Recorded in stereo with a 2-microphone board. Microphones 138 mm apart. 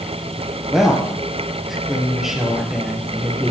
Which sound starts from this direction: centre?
A woman speaking, at 0.7 s.